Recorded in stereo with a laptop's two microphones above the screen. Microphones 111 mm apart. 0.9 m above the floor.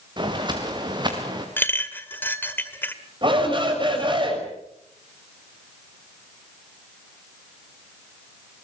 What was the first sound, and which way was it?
Footsteps, 40° right (ahead or behind).